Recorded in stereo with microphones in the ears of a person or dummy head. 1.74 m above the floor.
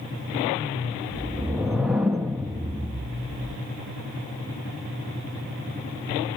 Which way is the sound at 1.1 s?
Centre (ahead or behind).